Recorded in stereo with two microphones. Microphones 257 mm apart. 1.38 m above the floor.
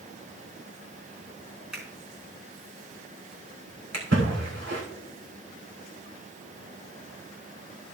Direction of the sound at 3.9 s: 70° right (ahead or behind).